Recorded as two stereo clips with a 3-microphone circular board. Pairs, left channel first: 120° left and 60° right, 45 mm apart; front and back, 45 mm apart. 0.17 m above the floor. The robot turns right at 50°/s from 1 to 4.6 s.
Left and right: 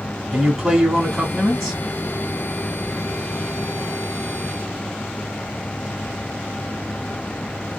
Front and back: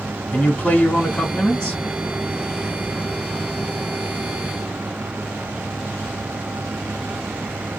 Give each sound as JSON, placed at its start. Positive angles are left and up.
{"t": 0.3, "sound": "a man speaking", "azimuth_deg": 5, "distance_m": 1.0}